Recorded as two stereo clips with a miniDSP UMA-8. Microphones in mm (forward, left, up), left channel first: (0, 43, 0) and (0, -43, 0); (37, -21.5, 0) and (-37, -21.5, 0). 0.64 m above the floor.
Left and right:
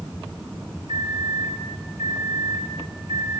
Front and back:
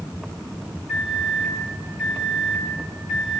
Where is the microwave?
100° right, 5 m.